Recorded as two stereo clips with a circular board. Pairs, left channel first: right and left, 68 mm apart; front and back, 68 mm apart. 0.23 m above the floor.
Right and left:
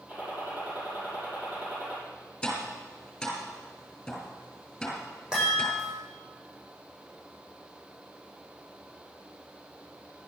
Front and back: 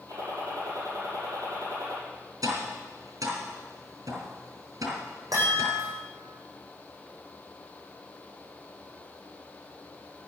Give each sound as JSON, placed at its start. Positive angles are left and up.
{"t": 0.1, "sound": "a gunshot", "azimuth_deg": 155, "distance_m": 6.5}
{"t": 2.4, "sound": "tapping", "azimuth_deg": -170, "distance_m": 4.0}
{"t": 5.3, "sound": "a chime", "azimuth_deg": 170, "distance_m": 8.5}